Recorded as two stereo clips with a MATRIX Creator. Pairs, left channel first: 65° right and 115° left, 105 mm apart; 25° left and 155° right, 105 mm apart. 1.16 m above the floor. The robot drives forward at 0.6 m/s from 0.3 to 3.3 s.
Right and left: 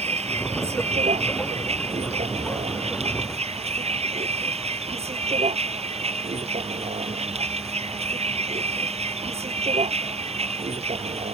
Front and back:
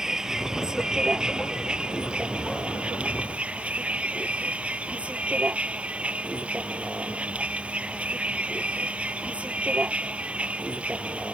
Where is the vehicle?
120° left; by 11.3 s 125° left.